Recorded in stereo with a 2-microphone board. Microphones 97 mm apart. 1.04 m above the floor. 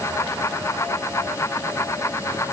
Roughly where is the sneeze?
I don't hear a sneeze.